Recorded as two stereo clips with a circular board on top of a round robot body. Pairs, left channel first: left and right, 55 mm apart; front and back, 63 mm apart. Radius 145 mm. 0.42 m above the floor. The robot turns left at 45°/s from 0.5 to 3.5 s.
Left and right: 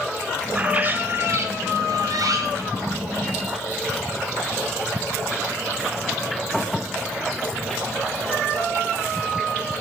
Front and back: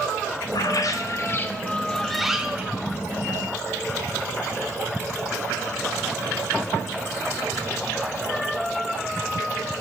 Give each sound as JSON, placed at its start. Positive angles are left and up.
{"t": 0.5, "sound": "a bird", "azimuth_deg": -15, "distance_m": 0.6}